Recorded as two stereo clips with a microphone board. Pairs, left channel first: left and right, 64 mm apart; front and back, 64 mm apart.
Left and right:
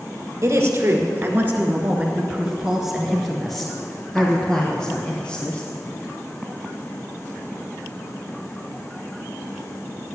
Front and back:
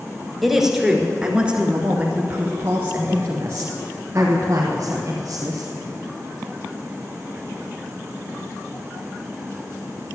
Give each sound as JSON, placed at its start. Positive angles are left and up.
{"t": 0.4, "sound": "a woman speaking", "azimuth_deg": -95, "distance_m": 1.7}